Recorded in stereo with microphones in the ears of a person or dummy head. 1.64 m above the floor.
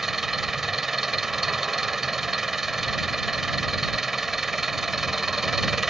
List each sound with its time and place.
0.0 s an engine running: 5° right (ahead or behind)